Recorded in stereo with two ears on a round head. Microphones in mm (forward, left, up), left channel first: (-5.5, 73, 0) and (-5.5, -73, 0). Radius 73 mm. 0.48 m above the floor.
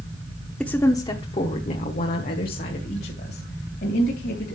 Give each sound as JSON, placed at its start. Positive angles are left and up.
{"t": 0.6, "sound": "a woman speaking", "side_deg": 5, "distance_m": 0.8}